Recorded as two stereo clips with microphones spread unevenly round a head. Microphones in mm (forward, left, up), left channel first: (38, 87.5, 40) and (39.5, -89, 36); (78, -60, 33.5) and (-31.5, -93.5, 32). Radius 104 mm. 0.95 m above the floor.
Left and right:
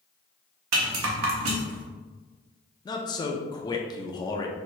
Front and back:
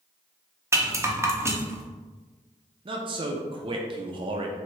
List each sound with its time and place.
0.7 s a rattle: 95° right, 0.8 m
2.9 s a man speaking: 155° left, 0.5 m